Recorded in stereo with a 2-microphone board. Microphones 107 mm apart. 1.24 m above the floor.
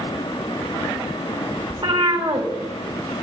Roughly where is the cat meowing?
Right.